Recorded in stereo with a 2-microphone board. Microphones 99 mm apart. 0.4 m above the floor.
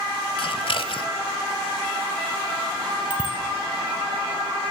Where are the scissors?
65° left (ahead or behind), 1.6 m.